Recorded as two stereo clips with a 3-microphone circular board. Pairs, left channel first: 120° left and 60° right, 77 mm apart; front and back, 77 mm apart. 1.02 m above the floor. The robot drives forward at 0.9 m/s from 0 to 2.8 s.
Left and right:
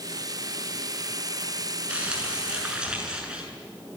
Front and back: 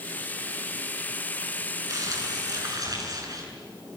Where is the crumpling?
135° right, 8 m; by 3.4 s 140° right, 8.5 m.